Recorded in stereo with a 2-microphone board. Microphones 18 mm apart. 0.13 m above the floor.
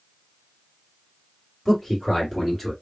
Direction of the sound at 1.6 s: 20° left (ahead or behind).